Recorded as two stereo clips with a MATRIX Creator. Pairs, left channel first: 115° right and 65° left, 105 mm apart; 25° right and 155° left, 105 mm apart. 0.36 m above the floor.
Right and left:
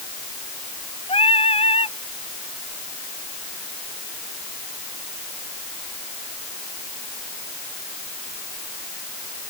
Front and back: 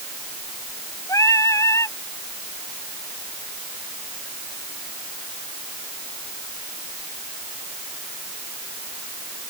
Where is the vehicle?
I don't hear a vehicle.